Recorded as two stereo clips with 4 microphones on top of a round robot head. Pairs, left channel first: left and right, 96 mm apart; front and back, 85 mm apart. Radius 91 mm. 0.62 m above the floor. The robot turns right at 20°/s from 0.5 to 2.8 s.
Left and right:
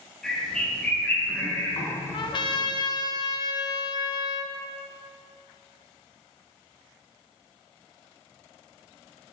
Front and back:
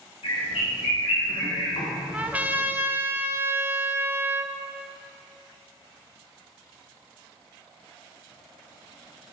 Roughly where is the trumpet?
Left.